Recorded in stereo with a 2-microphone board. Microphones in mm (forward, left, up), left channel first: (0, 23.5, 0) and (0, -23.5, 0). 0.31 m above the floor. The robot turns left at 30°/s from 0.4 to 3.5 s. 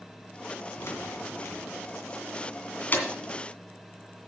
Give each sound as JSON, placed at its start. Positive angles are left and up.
{"t": 0.8, "sound": "keys jangling", "side_deg": 65, "distance_m": 2.0}